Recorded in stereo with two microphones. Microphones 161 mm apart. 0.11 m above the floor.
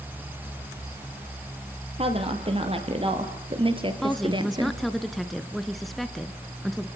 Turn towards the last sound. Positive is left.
turn(degrees=0)  # may be behind; listen again after turning